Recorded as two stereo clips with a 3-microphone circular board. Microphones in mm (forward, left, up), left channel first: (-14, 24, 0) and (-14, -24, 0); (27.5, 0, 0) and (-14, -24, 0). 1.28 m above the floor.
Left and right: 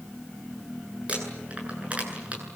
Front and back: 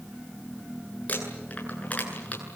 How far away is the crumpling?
About 9 m.